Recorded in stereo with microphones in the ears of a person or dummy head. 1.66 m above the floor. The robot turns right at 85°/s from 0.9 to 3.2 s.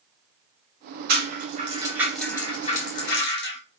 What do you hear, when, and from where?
1.1 s a rattle: 60° right (ahead or behind), 2 m; by 3.6 s 60° left (ahead or behind), 2 m